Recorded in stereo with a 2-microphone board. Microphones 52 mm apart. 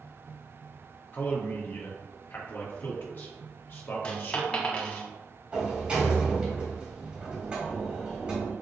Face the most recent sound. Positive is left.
turn(degrees=-20)  # may be behind; listen again after turning